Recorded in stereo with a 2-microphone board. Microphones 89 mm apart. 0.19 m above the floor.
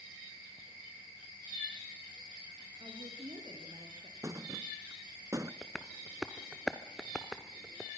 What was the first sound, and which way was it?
A woman speaking, 70° right (ahead or behind).